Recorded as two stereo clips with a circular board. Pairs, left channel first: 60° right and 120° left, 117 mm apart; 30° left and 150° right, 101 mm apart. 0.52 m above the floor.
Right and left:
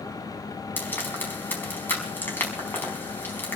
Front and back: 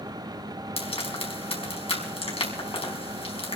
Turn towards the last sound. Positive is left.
turn(degrees=10)